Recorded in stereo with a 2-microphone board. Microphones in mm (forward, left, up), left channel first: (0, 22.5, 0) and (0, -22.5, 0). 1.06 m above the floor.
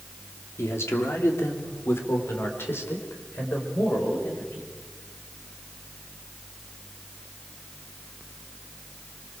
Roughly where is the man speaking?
Left.